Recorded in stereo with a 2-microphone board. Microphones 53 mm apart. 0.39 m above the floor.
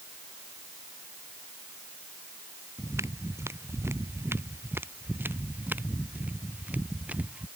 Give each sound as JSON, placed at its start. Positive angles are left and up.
{"t": 2.8, "sound": "footsteps", "side_deg": -75}